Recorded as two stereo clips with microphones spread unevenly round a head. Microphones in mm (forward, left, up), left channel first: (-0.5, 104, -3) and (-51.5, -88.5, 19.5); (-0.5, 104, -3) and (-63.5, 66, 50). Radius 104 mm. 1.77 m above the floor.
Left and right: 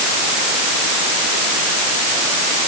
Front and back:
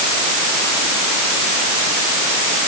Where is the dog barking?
I don't hear a dog barking.